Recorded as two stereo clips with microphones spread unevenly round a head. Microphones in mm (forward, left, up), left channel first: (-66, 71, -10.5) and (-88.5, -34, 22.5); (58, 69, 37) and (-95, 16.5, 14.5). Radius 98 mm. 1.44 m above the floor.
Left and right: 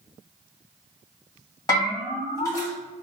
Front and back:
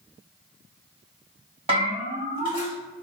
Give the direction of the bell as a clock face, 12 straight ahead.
7 o'clock.